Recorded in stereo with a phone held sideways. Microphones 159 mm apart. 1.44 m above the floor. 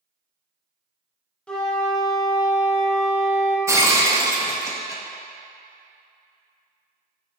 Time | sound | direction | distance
1.5 | a flute | 5° left (ahead or behind) | 1.0 m
3.7 | breaking glass | 20° right (ahead or behind) | 0.9 m